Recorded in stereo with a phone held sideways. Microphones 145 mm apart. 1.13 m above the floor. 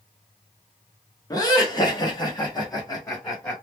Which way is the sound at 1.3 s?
25° left (ahead or behind).